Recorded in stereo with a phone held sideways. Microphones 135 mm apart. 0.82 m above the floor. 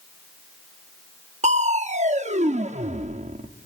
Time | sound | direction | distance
1.4 | crushing | 60° right (ahead or behind) | 0.9 m